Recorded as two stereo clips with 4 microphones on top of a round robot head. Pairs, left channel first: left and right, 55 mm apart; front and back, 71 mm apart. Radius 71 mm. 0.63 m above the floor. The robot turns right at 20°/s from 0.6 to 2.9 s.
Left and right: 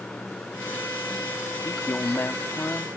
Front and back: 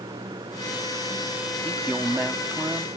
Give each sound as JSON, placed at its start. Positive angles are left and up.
{"t": 0.0, "sound": "running water", "azimuth_deg": 160}
{"t": 1.6, "sound": "a man speaking", "azimuth_deg": 110}